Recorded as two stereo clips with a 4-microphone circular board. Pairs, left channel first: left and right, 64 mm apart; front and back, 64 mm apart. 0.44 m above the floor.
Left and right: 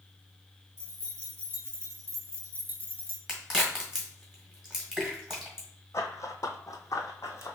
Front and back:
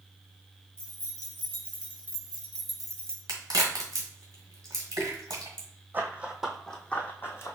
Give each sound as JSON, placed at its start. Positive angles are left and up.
{"t": 0.8, "sound": "keys jangling", "azimuth_deg": -135, "distance_m": 1.5}
{"t": 3.3, "sound": "a crack", "azimuth_deg": -170, "distance_m": 1.5}
{"t": 5.9, "sound": "running footsteps", "azimuth_deg": 125, "distance_m": 0.8}